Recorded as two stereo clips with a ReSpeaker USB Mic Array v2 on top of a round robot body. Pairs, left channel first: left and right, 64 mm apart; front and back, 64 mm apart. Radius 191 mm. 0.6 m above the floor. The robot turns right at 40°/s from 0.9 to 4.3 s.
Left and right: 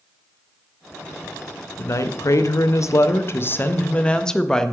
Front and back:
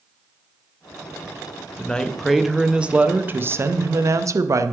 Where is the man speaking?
65° left, 0.7 m; by 4.7 s 170° left, 0.7 m.